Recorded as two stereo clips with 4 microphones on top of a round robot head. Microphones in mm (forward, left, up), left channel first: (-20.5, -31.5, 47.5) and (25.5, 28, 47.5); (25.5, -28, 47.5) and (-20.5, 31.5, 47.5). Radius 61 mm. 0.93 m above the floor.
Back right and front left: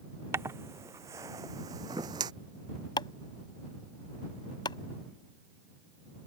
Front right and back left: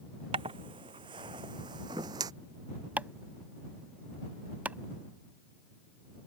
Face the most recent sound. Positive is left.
turn(degrees=-160)